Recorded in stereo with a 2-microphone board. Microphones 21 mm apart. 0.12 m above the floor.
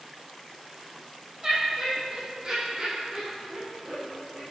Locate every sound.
1.4 s laughter: 35° right (ahead or behind), 4.5 m; by 4.4 s 75° right (ahead or behind), 6.5 m